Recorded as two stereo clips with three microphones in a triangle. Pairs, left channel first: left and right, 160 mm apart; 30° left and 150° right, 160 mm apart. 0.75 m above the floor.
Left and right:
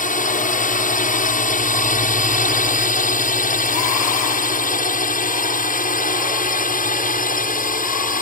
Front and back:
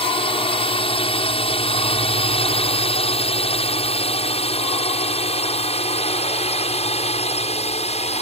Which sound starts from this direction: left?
A drone, at 0.0 s.